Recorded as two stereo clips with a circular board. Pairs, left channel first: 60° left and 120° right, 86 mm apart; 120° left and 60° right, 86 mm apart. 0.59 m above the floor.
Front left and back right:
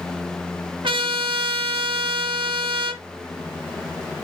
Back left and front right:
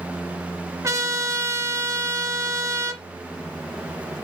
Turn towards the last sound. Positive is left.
turn(degrees=-115)